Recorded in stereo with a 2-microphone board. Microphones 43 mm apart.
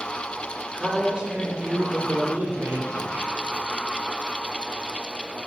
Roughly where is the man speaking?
Centre.